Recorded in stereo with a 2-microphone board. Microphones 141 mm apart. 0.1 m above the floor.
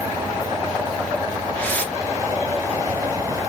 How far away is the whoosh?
About 0.9 m.